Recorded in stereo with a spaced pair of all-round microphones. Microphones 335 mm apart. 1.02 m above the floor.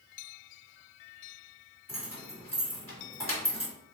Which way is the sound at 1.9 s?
15° left (ahead or behind).